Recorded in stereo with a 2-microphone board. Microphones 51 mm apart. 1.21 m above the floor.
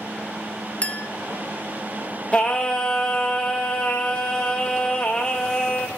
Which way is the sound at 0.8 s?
30° left (ahead or behind).